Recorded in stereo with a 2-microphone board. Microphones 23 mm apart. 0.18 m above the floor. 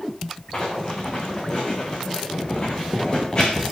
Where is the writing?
35° left (ahead or behind), 5 m.